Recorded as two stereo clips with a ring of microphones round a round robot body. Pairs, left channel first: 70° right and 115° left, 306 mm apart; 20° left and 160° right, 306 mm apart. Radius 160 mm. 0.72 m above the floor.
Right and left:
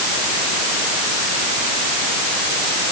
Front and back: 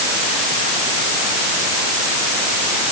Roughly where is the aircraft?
I don't hear an aircraft.